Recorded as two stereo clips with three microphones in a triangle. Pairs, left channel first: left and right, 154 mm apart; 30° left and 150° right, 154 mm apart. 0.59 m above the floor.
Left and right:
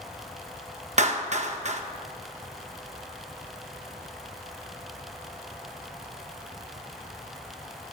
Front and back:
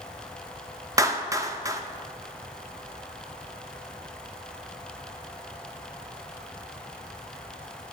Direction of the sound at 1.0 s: 85° right.